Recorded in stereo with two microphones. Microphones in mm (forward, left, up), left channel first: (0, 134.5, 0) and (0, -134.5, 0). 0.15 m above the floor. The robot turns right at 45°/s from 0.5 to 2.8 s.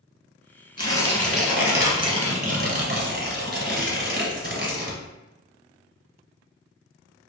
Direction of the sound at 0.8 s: 155° left.